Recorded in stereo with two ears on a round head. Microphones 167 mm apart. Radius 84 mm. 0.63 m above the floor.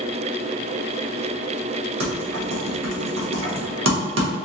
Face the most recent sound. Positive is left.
turn(degrees=-75)  # may be behind; listen again after turning